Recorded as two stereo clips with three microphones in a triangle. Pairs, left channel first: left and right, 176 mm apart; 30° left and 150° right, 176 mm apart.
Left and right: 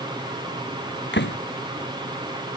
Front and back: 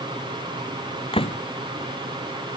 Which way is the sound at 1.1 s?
90° left.